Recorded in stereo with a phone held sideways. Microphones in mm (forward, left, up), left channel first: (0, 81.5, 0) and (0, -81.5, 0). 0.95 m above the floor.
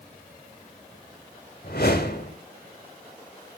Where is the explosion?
I don't hear an explosion.